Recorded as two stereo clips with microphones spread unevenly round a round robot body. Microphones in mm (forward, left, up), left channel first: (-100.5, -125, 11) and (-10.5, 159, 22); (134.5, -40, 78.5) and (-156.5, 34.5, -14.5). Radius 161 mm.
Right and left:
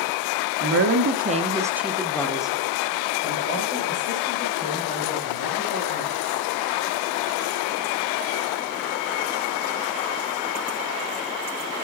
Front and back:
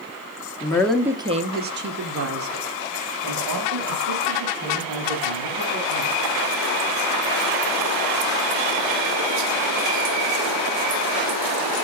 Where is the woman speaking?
75° left, 0.9 m; by 6.5 s 165° right, 4 m.